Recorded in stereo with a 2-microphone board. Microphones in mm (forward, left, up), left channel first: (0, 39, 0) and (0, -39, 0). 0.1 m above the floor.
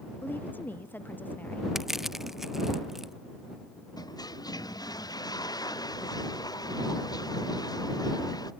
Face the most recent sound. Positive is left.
turn(degrees=55)  # may be behind; listen again after turning